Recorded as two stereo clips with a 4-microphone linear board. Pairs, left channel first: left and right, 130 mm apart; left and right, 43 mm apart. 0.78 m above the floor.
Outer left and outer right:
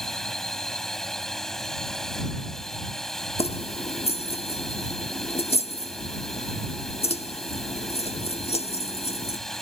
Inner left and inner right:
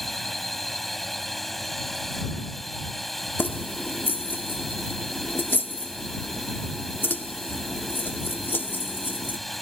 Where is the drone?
5° left (ahead or behind).